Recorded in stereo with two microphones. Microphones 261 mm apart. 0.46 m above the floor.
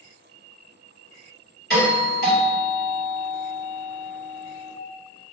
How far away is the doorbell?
About 1.8 m.